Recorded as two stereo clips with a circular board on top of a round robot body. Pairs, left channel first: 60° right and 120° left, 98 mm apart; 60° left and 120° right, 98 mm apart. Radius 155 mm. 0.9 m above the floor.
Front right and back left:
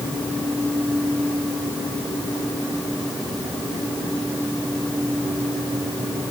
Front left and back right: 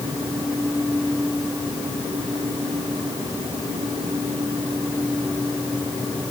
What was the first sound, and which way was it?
Only background noise.